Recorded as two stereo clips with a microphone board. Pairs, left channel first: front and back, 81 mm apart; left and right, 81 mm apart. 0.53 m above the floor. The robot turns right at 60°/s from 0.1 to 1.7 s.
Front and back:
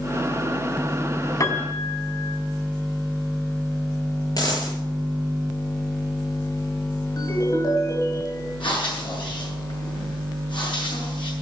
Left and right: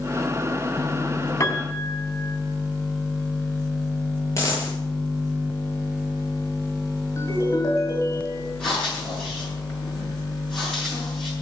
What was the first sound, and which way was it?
A piano, 35° left.